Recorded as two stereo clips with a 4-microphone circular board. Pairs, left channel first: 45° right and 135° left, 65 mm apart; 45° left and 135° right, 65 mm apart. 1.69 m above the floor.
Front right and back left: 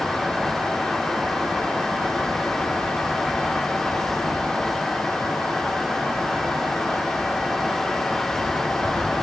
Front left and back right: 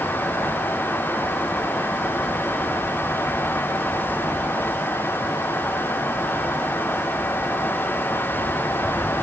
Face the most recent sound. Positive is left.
No sound to turn to.